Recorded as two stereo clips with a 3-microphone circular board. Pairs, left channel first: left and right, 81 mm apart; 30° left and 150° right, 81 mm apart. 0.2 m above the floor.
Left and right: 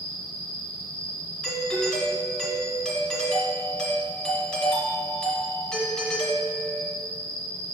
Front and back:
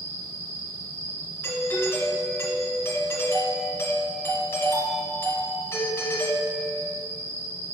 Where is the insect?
160° left, 1.0 m.